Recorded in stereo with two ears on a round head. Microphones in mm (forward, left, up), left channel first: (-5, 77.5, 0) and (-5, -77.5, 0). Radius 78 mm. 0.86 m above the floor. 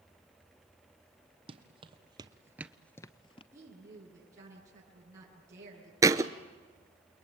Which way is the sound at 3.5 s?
20° right (ahead or behind).